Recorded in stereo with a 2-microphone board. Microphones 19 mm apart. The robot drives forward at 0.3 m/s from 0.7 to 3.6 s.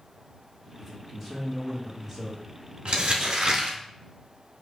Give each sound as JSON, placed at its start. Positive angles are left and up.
{"t": 0.8, "sound": "a man speaking", "side_deg": 0, "distance_m": 1.1}
{"t": 2.9, "sound": "crumpling", "side_deg": -75, "distance_m": 1.0}